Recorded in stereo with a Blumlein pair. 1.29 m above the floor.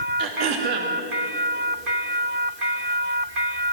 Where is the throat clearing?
35° right, 3 m.